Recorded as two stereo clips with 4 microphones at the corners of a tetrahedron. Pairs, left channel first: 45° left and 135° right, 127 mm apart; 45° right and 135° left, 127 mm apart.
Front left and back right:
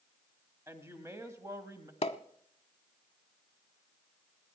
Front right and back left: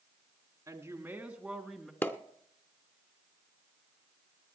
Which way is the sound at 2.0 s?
25° left.